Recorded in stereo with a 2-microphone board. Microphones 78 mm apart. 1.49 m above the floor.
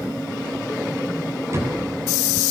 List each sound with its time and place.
1.5 s a door slam: 40° right (ahead or behind), 10 m